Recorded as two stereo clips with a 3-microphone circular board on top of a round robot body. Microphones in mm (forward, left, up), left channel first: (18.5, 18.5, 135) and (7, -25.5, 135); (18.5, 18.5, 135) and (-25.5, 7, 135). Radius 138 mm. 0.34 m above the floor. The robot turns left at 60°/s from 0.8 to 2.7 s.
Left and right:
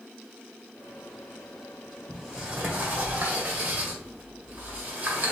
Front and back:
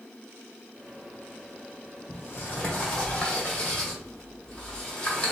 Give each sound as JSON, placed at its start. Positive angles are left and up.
{"t": 2.1, "sound": "a sliding door", "azimuth_deg": -20, "distance_m": 1.8}